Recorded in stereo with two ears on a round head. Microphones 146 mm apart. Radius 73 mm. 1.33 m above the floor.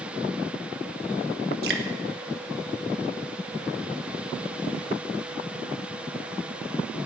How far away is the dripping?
About 1.6 m.